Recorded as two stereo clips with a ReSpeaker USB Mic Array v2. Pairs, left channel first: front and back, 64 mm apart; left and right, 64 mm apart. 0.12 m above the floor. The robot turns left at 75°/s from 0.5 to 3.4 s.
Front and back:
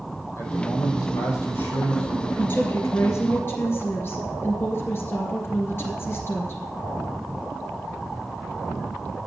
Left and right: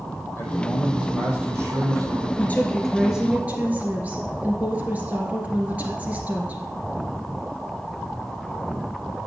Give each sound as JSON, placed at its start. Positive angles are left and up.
{"t": 0.4, "sound": "a man speaking", "azimuth_deg": 50, "distance_m": 3.5}
{"t": 2.4, "sound": "a woman speaking", "azimuth_deg": 45, "distance_m": 2.5}